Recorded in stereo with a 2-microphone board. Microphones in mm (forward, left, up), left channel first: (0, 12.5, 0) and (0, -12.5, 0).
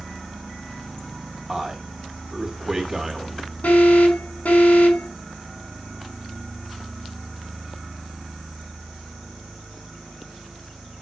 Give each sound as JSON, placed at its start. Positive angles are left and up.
{"t": 1.5, "sound": "a man speaking", "side_deg": -15, "distance_m": 3.5}
{"t": 3.6, "sound": "an alarm", "side_deg": 70, "distance_m": 5.5}